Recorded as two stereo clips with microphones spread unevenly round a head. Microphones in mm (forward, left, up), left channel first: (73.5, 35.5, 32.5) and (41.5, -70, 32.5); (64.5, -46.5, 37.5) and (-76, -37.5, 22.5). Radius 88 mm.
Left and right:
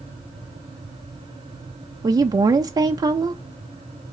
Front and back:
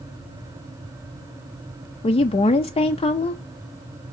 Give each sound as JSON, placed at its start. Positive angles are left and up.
{"t": 2.0, "sound": "a woman speaking", "azimuth_deg": -55, "distance_m": 0.5}